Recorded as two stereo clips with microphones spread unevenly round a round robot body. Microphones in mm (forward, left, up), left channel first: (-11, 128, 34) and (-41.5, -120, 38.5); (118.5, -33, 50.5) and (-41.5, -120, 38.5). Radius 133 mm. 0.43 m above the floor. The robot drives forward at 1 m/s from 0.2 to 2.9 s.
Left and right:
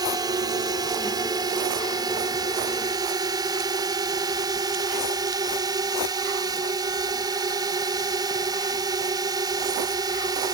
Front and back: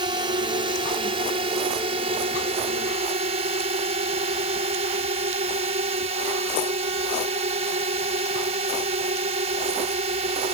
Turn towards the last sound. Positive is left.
turn(degrees=-165)